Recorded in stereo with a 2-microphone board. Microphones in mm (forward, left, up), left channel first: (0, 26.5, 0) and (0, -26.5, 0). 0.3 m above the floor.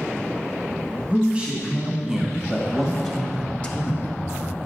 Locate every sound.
1.1 s a man speaking: 20° right (ahead or behind), 2 m; by 4.2 s 35° left (ahead or behind), 1.4 m